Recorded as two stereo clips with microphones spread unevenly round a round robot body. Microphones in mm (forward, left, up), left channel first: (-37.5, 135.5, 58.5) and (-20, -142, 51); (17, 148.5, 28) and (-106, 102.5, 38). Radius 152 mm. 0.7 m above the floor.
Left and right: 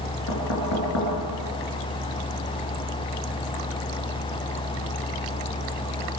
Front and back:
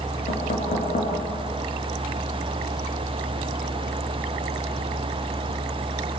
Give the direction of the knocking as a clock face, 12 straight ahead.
10 o'clock.